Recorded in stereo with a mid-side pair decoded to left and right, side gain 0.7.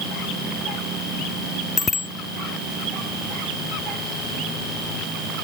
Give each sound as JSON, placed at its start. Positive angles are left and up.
{"t": 1.8, "sound": "a bicycle bell", "azimuth_deg": 25}